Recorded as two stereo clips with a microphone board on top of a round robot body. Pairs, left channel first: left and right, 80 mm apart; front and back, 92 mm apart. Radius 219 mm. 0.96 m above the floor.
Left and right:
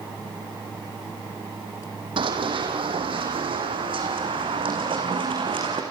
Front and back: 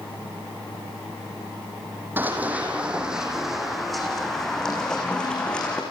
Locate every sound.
2.2 s running footsteps: 110° right, 3 m; by 5.8 s 80° right, 5 m